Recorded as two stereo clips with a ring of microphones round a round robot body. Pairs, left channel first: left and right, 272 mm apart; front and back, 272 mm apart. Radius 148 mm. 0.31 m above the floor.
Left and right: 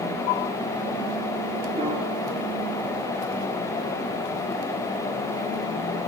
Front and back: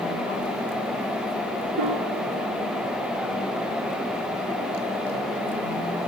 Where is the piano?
160° right, 2.5 m.